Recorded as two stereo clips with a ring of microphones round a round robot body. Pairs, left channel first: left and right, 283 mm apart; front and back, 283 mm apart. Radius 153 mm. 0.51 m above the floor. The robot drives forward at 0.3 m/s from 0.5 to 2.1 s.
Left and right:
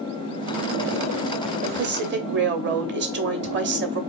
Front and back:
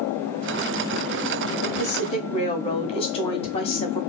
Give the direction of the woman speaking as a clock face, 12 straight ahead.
2 o'clock.